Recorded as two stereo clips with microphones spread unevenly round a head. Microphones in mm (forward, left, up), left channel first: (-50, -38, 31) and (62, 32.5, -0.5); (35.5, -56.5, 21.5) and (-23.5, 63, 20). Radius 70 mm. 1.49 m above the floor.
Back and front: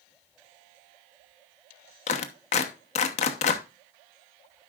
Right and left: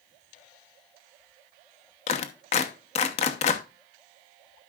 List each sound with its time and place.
2.1 s a clap: 110° right, 1.0 m